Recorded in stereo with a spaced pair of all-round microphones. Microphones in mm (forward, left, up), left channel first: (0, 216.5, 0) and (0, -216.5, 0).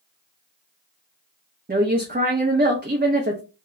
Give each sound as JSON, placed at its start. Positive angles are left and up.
{"t": 1.7, "sound": "a woman speaking", "side_deg": -20, "distance_m": 0.6}